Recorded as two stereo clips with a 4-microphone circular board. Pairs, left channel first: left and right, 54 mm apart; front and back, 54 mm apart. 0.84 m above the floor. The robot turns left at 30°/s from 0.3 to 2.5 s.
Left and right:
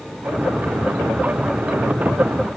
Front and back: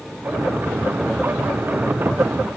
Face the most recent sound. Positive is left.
No sound to turn to.